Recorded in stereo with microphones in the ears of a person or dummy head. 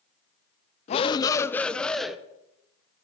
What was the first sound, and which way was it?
A shout, 35° left (ahead or behind).